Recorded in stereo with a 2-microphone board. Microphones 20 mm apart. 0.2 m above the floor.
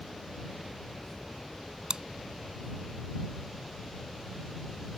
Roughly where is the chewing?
Right.